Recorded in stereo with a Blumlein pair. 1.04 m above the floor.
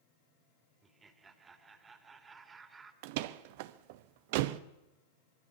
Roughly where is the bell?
I don't hear a bell.